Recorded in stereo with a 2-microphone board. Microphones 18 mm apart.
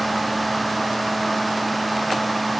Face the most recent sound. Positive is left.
No sound to turn to.